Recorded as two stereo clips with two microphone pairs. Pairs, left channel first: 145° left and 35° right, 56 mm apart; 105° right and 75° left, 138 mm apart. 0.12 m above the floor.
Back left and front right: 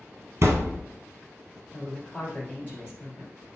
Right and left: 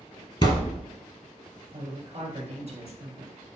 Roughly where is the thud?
Ahead right.